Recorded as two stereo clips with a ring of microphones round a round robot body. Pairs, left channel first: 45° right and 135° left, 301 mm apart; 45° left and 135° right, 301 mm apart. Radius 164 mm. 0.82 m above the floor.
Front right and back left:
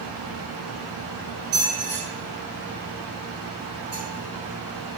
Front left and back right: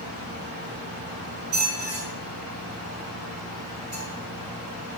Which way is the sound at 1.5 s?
Straight behind.